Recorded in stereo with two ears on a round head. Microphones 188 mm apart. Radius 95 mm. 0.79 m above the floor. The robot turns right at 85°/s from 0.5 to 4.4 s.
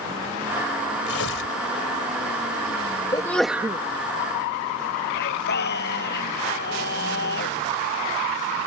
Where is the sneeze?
155° left; by 3.8 s 145° right.